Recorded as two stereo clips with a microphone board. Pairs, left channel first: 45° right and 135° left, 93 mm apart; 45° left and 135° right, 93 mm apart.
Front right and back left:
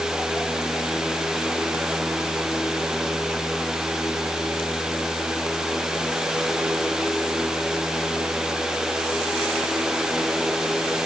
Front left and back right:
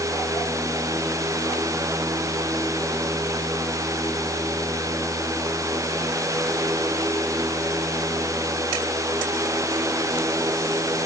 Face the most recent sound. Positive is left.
No sound to turn to.